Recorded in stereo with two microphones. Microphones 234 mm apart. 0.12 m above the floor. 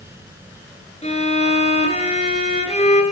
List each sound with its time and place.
1.0 s a violin: 30° left (ahead or behind), 2 m